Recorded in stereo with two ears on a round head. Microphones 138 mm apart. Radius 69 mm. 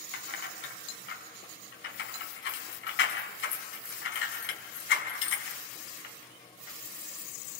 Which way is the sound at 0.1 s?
85° left.